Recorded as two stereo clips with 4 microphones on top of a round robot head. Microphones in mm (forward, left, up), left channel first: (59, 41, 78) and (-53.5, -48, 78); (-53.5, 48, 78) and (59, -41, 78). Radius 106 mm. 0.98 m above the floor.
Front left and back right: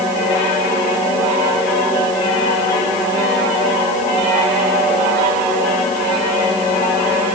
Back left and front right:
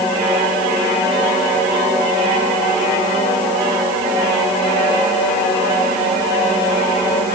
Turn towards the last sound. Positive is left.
No sound to turn to.